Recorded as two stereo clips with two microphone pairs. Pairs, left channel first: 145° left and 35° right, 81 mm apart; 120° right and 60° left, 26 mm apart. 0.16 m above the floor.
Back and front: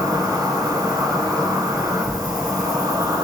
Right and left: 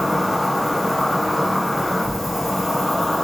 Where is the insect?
20° right, 1.6 m.